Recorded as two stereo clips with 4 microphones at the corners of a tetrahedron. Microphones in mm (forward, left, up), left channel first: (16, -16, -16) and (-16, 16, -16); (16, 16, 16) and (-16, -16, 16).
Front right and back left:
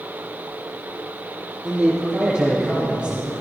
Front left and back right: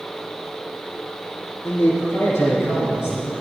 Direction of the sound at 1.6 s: 60° left.